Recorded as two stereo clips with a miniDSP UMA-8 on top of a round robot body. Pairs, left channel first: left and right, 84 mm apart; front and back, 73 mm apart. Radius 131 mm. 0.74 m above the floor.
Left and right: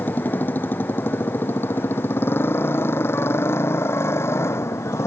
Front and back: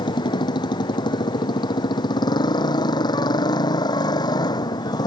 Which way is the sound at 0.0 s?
20° left.